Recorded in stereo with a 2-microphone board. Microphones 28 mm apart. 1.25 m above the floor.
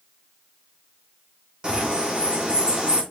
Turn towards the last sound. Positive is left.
turn(degrees=-35)  # may be behind; listen again after turning